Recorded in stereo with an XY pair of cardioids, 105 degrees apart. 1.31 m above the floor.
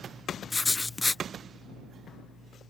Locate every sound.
0.5 s writing: 20° left